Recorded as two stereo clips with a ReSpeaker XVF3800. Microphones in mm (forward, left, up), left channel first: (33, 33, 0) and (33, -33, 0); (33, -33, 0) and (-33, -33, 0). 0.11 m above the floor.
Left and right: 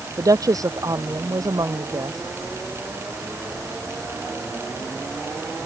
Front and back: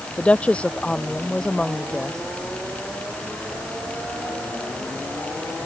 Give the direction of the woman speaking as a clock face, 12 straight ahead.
2 o'clock.